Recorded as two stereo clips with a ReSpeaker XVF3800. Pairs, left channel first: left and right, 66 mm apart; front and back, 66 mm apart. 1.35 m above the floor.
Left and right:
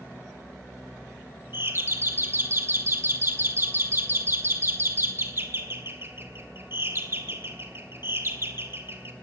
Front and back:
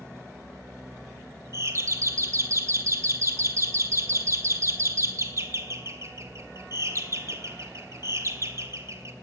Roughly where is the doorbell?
Behind right.